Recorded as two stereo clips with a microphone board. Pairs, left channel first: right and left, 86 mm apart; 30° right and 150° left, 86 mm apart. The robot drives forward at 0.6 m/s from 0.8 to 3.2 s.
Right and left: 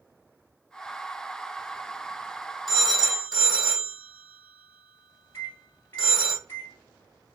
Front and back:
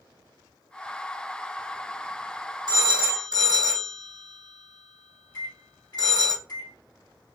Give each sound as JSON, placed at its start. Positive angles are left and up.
{"t": 2.7, "sound": "a phone ringing", "azimuth_deg": -175, "distance_m": 2.0}
{"t": 5.3, "sound": "a microwave", "azimuth_deg": -35, "distance_m": 2.0}